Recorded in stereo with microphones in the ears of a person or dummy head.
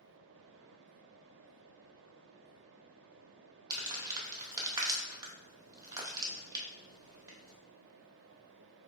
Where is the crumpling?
15° right (ahead or behind), 0.8 m.